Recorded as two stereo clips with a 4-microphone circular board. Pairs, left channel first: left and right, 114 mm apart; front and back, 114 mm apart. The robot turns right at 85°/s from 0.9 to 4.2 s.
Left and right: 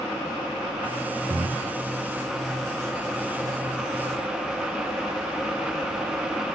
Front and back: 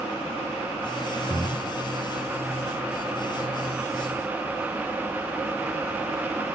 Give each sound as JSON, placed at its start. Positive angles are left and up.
{"t": 1.3, "sound": "breathing", "azimuth_deg": -130, "distance_m": 0.6}